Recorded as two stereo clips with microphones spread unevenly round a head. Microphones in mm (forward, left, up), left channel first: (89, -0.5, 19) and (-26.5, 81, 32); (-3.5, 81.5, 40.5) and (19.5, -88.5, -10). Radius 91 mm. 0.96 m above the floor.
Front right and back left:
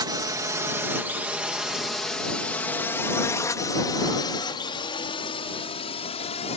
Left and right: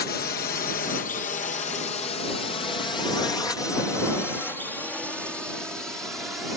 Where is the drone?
100° left; by 6.6 s straight ahead.